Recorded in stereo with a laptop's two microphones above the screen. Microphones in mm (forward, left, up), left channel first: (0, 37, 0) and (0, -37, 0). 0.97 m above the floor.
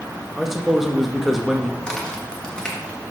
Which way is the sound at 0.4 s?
5° right (ahead or behind).